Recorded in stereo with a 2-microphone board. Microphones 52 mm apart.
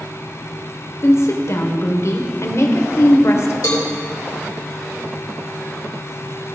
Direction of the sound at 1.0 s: 60° left (ahead or behind).